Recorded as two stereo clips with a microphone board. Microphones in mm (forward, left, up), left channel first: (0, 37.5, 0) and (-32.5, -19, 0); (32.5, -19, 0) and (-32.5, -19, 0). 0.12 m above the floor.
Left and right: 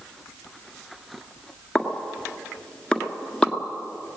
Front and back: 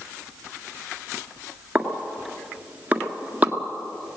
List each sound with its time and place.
1.8 s a pop: 130° left, 1.6 m